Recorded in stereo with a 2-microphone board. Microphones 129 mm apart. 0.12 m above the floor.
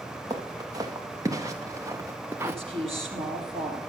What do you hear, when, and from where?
0.3 s footsteps: 30° right (ahead or behind), 2.5 m; by 2.5 s 20° right (ahead or behind), 0.6 m
2.4 s a woman speaking: 45° right (ahead or behind), 4.5 m